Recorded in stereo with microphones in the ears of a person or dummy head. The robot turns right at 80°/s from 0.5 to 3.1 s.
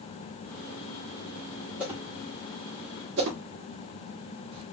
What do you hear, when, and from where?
1.8 s a whoosh: 10° right (ahead or behind), 1.9 m; by 4.6 s 60° right (ahead or behind), 1.9 m